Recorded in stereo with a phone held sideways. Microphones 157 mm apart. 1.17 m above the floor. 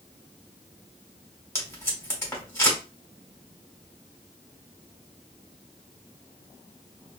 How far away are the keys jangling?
No keys jangling in this recording.